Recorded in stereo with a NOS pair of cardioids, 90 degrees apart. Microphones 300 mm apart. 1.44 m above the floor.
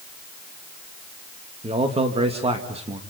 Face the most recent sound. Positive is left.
turn(degrees=-20)